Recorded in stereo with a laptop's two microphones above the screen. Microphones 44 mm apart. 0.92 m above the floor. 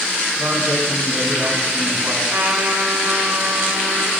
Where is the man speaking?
50° right (ahead or behind), 8 m.